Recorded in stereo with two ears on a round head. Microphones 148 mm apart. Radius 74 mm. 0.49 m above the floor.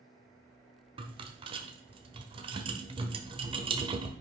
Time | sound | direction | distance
1.0 | a rattle | 30° right (ahead or behind) | 1.1 m